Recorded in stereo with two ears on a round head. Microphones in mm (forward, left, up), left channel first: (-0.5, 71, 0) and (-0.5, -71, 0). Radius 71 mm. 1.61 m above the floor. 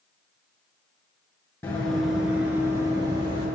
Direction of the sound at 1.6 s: 10° left (ahead or behind).